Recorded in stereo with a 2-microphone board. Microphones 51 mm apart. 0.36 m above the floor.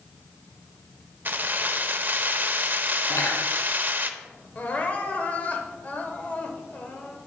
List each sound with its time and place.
1.2 s keys jangling: 35° right (ahead or behind), 0.6 m
3.1 s cutlery clinking: 75° left (ahead or behind), 2.5 m
4.5 s crying: 30° left (ahead or behind), 1.1 m